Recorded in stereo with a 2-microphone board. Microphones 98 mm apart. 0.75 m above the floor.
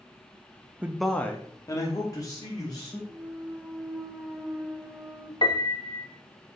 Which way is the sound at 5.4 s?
50° left (ahead or behind).